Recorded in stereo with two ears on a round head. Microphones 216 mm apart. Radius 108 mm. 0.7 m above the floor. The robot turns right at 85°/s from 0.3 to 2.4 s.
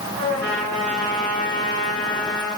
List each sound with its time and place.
0.2 s a trumpet: 60° right, 5.5 m; by 2.5 s 120° left, 5.5 m